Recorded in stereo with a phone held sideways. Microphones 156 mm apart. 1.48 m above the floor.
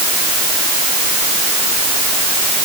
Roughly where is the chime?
I don't hear a chime.